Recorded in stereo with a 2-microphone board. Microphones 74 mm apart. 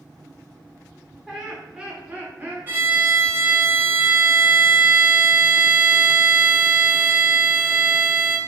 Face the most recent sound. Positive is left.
turn(degrees=-25)  # may be behind; listen again after turning